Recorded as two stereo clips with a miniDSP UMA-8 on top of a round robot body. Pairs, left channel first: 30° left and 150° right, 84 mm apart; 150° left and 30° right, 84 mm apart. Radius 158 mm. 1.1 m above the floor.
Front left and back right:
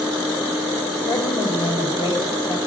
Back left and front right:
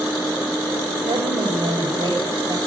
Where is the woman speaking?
5° left, 5 m.